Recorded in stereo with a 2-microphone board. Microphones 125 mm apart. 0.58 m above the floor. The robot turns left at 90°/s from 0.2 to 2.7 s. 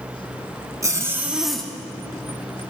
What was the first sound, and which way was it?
A zipper, 25° right (ahead or behind).